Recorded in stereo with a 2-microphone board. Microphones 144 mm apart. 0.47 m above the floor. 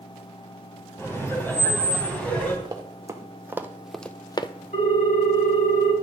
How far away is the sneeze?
I don't hear a sneeze.